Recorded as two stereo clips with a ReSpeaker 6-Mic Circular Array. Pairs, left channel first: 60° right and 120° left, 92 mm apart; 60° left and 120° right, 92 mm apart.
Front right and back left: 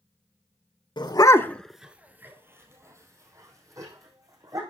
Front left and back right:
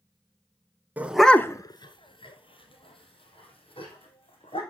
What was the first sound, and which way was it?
A dog barking, 55° right.